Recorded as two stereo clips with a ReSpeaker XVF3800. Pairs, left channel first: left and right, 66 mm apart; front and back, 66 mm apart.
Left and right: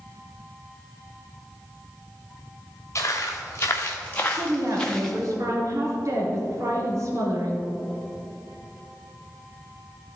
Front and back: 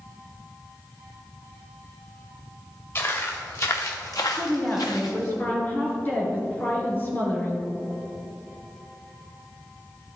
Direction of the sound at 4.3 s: 60° right.